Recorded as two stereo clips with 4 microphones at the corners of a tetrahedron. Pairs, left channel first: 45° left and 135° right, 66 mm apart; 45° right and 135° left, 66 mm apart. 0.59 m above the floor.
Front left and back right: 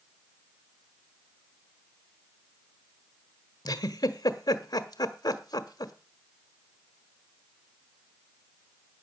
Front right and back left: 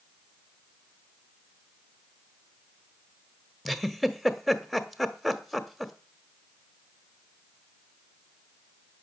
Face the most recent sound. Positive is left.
turn(degrees=45)